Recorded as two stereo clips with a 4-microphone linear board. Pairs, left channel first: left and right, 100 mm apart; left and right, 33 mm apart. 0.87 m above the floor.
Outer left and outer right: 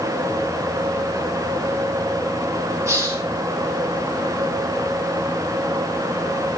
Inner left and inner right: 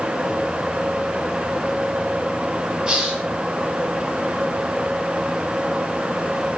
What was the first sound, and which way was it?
A hiss, 30° right (ahead or behind).